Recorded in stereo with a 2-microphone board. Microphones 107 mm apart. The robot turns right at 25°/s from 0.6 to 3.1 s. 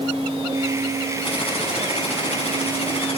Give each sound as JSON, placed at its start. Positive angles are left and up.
{"t": 1.2, "sound": "typing on a keyboard", "azimuth_deg": 65, "distance_m": 6.0}